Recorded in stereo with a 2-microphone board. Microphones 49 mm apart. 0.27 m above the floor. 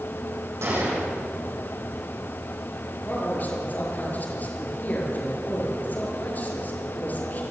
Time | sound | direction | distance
0.6 | a gunshot | 70° right (ahead or behind) | 8 m
3.0 | a man speaking | 35° left (ahead or behind) | 6.5 m